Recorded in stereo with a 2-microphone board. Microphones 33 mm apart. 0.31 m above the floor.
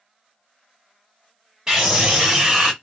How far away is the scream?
About 1.7 m.